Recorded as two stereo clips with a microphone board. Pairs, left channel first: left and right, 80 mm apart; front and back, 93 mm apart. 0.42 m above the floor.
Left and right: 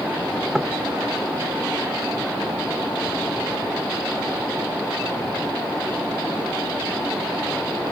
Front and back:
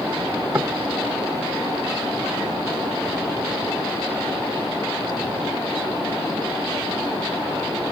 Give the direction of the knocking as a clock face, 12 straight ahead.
6 o'clock.